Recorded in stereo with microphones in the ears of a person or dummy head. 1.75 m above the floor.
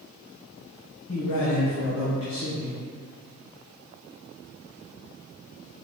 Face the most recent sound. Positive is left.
turn(degrees=80)